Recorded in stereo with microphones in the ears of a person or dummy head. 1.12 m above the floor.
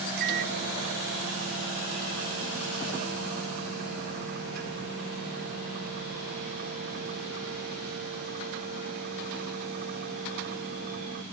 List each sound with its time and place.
0.2 s a microwave: 60° right (ahead or behind)